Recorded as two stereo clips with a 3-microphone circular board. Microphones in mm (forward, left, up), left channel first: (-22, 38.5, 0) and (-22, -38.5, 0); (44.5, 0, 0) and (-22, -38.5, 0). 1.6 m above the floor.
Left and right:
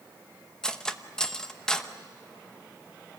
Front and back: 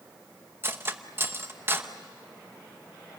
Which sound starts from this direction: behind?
Cutlery clinking, at 0.6 s.